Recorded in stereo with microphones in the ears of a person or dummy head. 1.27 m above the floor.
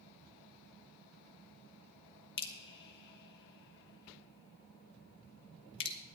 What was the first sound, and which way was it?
Dripping, 60° left (ahead or behind).